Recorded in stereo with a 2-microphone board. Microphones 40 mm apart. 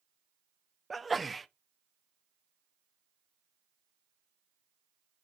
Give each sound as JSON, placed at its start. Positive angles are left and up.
{"t": 0.9, "sound": "a sneeze", "side_deg": 0, "distance_m": 0.6}